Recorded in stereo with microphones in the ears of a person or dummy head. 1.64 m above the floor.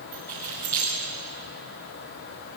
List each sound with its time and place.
0.1 s keys jangling: 10° left (ahead or behind), 9.5 m